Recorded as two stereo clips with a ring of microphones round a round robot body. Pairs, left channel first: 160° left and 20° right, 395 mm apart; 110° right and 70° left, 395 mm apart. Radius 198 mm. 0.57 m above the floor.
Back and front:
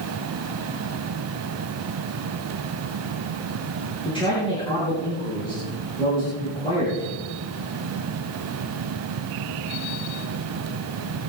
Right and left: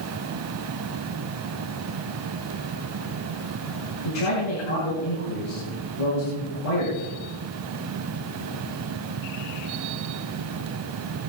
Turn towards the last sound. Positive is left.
turn(degrees=-125)